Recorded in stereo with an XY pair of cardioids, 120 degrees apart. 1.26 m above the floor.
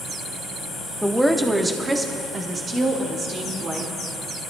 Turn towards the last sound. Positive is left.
turn(degrees=-45)